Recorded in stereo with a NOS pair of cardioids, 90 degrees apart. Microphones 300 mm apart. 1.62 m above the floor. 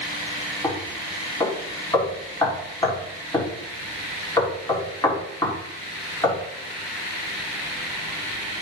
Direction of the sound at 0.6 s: 15° left.